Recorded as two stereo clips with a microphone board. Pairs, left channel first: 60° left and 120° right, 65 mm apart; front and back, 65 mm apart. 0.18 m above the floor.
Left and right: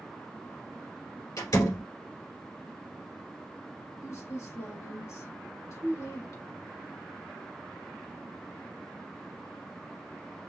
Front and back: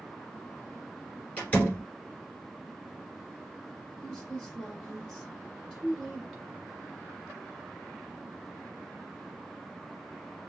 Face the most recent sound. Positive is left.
turn(degrees=75)